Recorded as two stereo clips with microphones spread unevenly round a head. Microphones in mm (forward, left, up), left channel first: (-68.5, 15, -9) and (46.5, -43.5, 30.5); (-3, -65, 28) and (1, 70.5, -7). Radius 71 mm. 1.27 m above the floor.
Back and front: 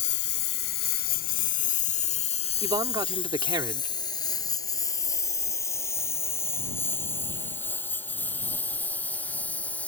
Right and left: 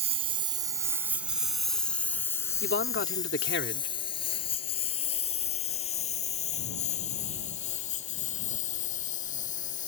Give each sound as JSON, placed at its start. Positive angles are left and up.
{"t": 0.0, "sound": "a lawn mower", "azimuth_deg": 140}
{"t": 2.6, "sound": "a man speaking", "azimuth_deg": -85}